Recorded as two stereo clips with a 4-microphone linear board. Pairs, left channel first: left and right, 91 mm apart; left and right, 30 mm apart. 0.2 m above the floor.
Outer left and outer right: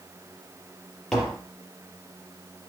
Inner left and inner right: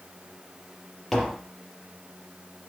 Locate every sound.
1.1 s tapping: 5° left (ahead or behind), 3.5 m